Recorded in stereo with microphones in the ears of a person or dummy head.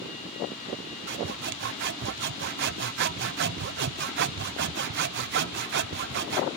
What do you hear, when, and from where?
1.1 s sawing: 55° right (ahead or behind)